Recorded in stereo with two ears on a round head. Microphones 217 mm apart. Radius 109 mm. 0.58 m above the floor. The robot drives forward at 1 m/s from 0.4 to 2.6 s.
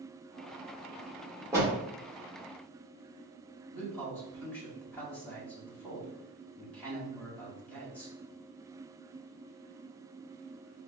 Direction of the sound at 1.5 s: 10° right (ahead or behind).